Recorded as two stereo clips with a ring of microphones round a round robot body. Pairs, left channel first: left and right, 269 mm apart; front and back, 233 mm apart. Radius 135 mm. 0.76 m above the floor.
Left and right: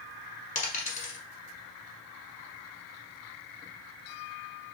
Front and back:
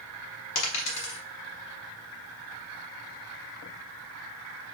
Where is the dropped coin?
25° left, 1.3 m.